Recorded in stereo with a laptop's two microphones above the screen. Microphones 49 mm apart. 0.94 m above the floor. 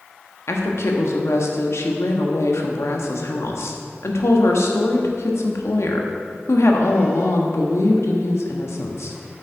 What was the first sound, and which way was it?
A woman speaking, 75° left (ahead or behind).